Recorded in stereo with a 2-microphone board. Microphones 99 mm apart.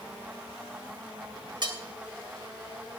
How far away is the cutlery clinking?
About 2.5 m.